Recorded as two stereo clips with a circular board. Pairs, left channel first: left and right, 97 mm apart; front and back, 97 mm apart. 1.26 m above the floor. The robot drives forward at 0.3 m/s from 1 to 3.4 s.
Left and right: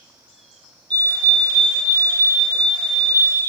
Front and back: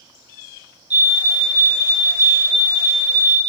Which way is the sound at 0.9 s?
115° right.